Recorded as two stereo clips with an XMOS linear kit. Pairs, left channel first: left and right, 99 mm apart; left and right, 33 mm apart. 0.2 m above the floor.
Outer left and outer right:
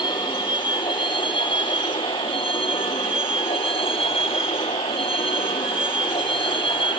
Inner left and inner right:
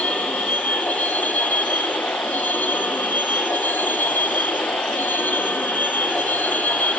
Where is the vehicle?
55° left (ahead or behind); by 7.0 s 65° left (ahead or behind).